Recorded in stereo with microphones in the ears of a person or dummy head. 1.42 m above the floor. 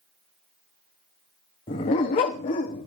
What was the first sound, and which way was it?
A dog barking, 20° left (ahead or behind).